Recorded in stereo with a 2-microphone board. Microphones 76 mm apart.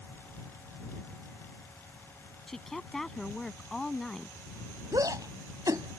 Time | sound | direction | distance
2.5 | a woman speaking | 5° left (ahead or behind) | ?
4.9 | a shout | 60° right (ahead or behind) | ?